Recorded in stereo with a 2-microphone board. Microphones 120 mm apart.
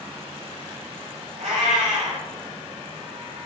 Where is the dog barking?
No dog barking in this recording.